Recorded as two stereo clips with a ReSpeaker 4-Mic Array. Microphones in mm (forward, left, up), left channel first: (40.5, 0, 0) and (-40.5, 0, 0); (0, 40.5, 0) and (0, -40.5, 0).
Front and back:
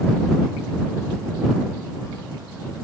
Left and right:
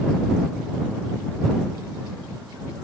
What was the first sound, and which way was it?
Only background noise.